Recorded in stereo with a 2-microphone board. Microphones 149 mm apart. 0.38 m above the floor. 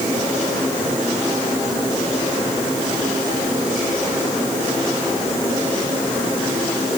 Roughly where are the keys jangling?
I don't hear keys jangling.